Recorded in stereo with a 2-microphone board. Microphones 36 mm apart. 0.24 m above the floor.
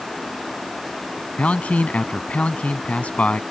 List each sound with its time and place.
1.4 s a man speaking: 40° left (ahead or behind)